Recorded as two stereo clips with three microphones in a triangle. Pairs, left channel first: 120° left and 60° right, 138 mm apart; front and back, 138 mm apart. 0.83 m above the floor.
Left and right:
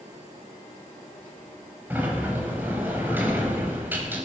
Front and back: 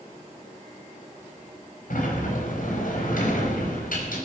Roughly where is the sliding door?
Ahead.